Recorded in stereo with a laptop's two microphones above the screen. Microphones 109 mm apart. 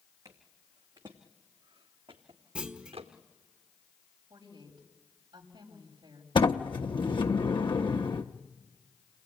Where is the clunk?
10° right (ahead or behind), 1.1 m.